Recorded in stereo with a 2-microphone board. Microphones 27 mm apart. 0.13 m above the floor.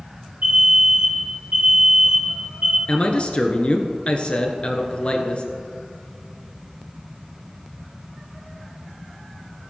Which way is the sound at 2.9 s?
45° left (ahead or behind).